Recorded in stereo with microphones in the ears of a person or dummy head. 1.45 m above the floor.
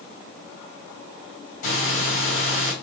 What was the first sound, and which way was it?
Breathing, 50° left (ahead or behind).